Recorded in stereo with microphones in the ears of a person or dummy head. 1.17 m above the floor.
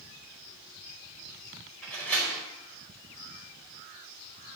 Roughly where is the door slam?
Centre.